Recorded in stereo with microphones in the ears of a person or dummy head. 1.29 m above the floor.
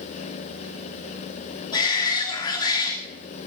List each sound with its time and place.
1.7 s a shout: 25° left (ahead or behind), 2.5 m